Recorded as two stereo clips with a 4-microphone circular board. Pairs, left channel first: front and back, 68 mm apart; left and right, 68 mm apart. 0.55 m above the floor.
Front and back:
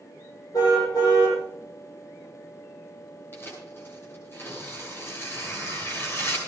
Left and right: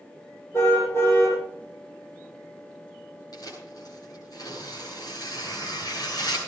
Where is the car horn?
30° left, 9 m.